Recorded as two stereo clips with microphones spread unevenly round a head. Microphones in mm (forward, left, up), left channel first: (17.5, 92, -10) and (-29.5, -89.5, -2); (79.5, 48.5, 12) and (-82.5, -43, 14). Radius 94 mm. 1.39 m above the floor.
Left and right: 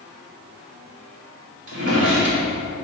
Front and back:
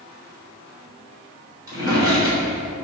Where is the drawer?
80° right, 2.5 m.